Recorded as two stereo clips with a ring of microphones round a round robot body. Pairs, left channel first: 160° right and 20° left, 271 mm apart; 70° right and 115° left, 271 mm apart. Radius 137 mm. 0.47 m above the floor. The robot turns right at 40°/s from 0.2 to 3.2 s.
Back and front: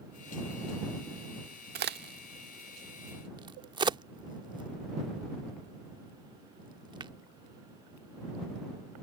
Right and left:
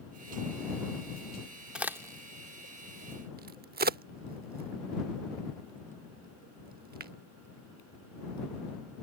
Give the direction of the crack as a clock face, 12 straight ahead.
11 o'clock.